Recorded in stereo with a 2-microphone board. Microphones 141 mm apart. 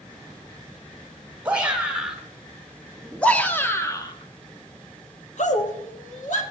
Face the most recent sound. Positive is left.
turn(degrees=60)  # may be behind; listen again after turning